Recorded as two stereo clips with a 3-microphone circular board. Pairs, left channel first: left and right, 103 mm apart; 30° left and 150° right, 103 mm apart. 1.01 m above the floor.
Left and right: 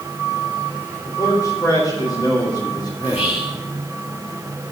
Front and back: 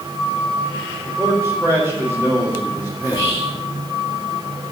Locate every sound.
1.1 s a man speaking: 145° left, 4.5 m; by 3.4 s 130° left, 3 m
3.0 s whispering: 85° left, 1.6 m